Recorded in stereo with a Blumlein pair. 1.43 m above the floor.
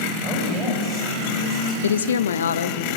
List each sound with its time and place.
0.2 s a woman speaking: 20° right, 7 m
1.8 s a woman speaking: 65° left, 0.6 m